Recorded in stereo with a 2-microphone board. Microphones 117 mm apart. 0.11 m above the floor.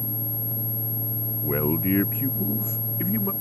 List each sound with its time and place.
1.4 s a man speaking: 15° left (ahead or behind); by 3.3 s 25° left (ahead or behind)